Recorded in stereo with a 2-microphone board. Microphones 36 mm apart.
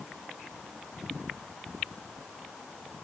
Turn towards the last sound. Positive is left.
No sound to turn to.